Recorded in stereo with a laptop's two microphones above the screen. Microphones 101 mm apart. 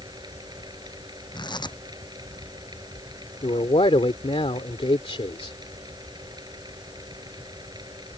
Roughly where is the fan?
Right.